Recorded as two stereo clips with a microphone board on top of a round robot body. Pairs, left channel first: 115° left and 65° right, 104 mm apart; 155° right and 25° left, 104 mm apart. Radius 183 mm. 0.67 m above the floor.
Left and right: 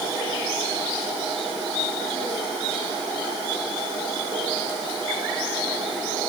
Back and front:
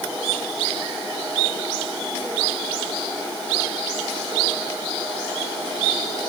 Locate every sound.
Only background noise.